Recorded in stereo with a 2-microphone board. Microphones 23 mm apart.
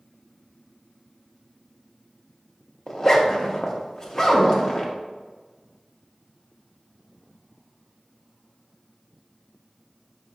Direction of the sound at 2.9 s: 20° left (ahead or behind).